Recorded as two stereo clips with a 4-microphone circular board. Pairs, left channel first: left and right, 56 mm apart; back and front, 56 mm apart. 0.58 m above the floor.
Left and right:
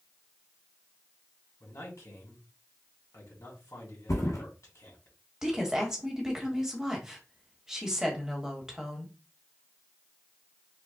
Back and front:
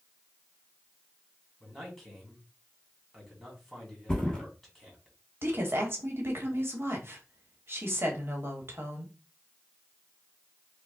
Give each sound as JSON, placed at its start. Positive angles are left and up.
{"t": 1.6, "sound": "a man speaking", "azimuth_deg": 90, "distance_m": 2.0}
{"t": 4.1, "sound": "a thud", "azimuth_deg": 105, "distance_m": 1.4}
{"t": 5.4, "sound": "a woman speaking", "azimuth_deg": -15, "distance_m": 1.2}